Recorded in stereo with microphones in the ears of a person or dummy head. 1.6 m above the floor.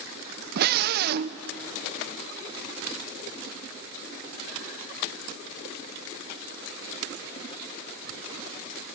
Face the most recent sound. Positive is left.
turn(degrees=-55)  # may be behind; listen again after turning